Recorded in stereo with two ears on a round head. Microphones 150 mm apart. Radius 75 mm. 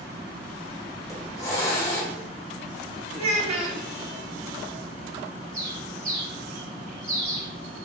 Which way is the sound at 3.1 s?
40° right (ahead or behind).